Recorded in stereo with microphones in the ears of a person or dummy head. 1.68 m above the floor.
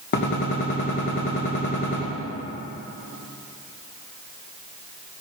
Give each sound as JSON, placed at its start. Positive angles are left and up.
{"t": 0.1, "sound": "a gunshot", "side_deg": 60, "distance_m": 2.5}